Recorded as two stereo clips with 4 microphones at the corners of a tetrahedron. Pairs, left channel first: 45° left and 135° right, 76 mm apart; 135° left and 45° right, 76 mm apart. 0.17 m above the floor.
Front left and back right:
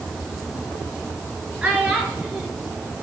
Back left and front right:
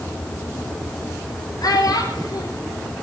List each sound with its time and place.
1.6 s a child speaking: 155° left, 1.9 m